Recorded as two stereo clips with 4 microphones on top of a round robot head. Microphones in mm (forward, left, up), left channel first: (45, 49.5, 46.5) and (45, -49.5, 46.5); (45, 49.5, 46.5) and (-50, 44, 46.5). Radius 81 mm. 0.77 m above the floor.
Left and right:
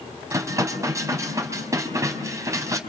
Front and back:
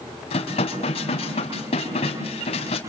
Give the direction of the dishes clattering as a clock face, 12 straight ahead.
1 o'clock.